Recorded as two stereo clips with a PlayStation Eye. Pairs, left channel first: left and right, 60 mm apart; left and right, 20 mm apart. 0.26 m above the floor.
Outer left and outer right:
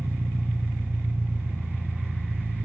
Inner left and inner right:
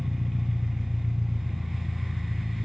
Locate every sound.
0.0 s an engine running: 45° right (ahead or behind), 1.1 m